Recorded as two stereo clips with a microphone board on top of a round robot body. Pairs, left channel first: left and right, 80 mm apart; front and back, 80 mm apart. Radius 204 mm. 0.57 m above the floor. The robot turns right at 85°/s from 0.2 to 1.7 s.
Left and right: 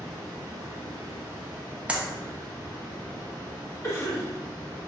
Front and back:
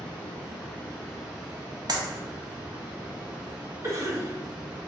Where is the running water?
15° left, 1.4 m; by 4.9 s 145° left, 1.4 m.